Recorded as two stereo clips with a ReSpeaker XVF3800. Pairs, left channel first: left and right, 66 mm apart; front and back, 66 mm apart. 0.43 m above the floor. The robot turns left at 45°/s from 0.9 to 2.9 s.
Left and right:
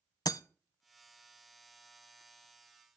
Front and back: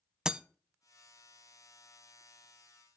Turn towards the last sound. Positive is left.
turn(degrees=10)